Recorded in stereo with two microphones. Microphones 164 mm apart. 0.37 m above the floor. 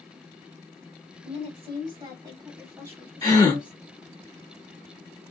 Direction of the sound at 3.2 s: 20° left (ahead or behind).